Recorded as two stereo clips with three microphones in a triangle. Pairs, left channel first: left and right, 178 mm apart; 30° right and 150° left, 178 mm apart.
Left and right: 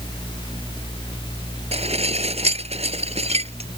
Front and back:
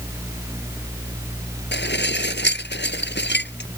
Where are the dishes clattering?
35° right.